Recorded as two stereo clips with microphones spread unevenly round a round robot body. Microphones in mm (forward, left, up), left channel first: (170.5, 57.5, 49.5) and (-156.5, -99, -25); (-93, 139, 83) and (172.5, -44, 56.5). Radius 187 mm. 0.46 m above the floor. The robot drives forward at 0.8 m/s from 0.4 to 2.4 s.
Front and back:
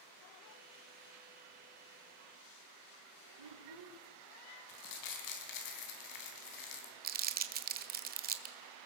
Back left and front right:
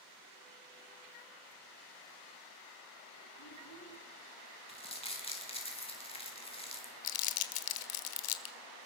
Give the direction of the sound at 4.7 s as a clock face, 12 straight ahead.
10 o'clock.